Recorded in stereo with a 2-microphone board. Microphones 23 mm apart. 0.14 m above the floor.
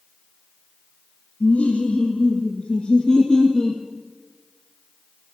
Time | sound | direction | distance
1.4 | laughter | 65° left (ahead or behind) | 2.5 m